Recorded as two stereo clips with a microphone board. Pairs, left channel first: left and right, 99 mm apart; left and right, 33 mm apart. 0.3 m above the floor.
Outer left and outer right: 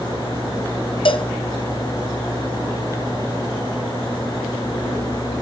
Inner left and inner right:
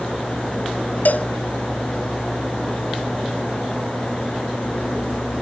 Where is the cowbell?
60° left (ahead or behind), 0.7 m.